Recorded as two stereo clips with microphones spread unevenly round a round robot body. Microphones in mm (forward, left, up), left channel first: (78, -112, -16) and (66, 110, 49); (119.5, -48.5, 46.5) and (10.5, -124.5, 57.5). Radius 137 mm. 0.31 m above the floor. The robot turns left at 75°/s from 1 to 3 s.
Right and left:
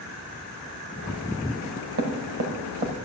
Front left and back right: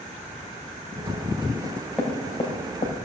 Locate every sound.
1.6 s knocking: 145° left, 1.9 m; by 2.9 s 45° left, 1.9 m